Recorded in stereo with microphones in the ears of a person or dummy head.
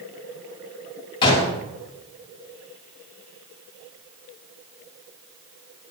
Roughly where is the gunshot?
Left.